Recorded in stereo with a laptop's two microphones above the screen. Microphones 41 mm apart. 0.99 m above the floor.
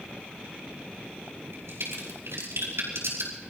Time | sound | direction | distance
1.5 | a crack | 80° right | 5 m